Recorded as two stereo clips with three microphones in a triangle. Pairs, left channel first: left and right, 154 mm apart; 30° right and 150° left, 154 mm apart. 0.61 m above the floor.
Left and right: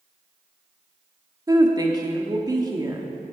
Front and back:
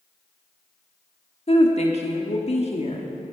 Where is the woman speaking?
35° right, 1.2 m.